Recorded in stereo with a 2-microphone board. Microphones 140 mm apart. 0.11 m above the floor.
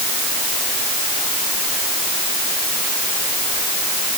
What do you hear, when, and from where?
Only background noise.